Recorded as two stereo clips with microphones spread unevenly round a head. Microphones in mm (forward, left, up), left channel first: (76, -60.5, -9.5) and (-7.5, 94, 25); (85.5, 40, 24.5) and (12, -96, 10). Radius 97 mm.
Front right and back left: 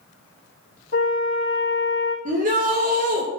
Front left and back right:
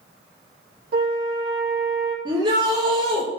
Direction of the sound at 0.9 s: 110° right.